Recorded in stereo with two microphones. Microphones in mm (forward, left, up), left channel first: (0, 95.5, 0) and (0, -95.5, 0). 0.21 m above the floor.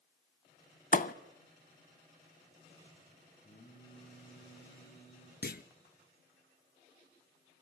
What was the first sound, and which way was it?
A thud, 45° left (ahead or behind).